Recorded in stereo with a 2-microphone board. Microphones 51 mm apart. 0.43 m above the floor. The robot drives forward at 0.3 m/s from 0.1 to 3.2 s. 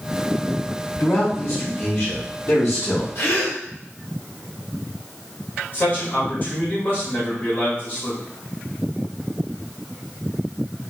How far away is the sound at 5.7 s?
About 1.8 m.